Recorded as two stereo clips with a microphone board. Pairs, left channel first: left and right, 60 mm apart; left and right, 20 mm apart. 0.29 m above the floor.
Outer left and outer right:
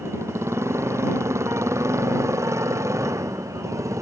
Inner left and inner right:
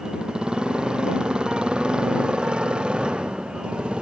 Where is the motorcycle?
55° right (ahead or behind); by 4.0 s 65° right (ahead or behind).